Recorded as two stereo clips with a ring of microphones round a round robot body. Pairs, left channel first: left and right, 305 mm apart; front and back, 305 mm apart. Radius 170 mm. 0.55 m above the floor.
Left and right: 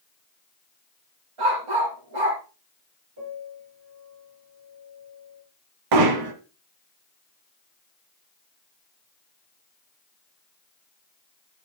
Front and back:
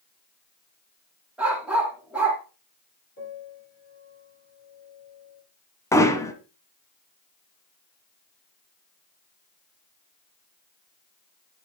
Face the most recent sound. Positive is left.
turn(degrees=-80)